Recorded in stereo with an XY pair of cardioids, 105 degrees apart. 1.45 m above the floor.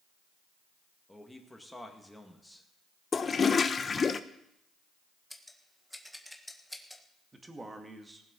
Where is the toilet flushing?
35° left, 0.8 m.